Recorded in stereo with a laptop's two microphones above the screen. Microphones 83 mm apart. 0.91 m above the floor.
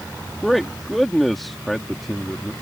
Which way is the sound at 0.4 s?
5° left (ahead or behind).